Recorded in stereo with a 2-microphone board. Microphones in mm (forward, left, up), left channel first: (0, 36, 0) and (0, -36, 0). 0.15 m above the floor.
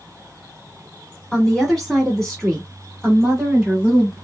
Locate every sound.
1.3 s a woman speaking: 10° left (ahead or behind), 1.3 m; by 4.1 s 5° right (ahead or behind), 1.6 m